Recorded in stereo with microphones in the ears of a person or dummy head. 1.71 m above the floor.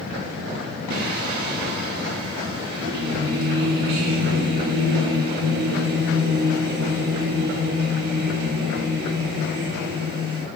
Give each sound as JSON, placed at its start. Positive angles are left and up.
{"t": 0.9, "sound": "singing", "side_deg": -70, "distance_m": 4.0}